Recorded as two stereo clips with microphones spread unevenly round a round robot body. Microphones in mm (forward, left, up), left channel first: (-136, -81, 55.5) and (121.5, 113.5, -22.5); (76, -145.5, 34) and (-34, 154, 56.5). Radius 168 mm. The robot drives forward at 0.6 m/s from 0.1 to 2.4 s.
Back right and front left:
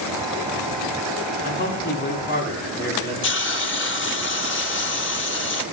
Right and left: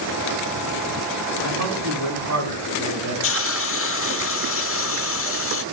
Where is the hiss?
85° right, 1.0 m.